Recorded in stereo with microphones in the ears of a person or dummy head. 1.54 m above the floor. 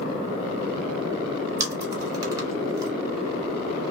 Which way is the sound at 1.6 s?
25° right (ahead or behind).